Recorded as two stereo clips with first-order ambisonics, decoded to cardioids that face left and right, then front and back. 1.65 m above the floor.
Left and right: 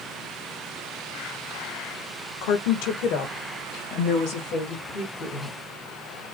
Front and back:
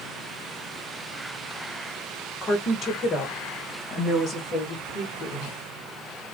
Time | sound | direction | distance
2.4 | a woman speaking | 75° left | 1.9 m